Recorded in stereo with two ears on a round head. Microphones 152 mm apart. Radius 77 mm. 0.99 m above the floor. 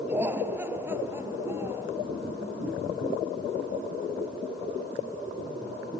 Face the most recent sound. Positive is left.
turn(degrees=-15)  # may be behind; listen again after turning